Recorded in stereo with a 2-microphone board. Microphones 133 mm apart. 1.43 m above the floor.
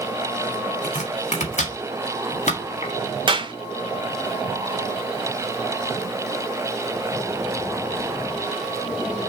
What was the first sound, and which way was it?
Chopping, 65° left (ahead or behind).